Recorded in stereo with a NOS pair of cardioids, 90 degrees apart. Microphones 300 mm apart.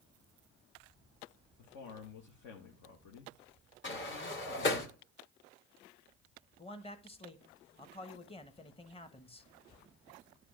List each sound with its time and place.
1.6 s a man speaking: 70° left, 1.5 m
3.8 s a sliding door: 40° left, 1.8 m
6.6 s a man speaking: 20° left, 1.3 m